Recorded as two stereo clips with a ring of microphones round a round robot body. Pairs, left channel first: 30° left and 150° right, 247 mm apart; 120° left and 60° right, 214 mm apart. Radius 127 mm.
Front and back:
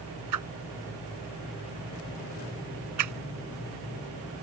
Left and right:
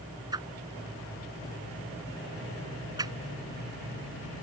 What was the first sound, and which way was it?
A whoosh, 135° right.